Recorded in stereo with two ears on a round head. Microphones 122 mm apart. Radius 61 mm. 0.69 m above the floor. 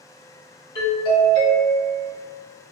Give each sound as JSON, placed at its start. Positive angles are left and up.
{"t": 0.8, "sound": "a doorbell", "side_deg": 35, "distance_m": 1.7}